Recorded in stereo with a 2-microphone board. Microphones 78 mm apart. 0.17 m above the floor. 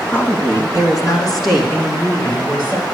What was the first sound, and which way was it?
A woman speaking, 25° left (ahead or behind).